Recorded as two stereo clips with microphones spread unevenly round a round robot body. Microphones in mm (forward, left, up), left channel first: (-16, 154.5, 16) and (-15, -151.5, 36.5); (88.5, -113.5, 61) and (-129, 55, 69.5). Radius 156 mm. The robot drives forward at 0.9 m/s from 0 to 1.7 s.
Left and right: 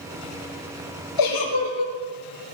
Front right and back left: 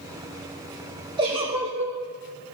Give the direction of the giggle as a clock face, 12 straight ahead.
10 o'clock.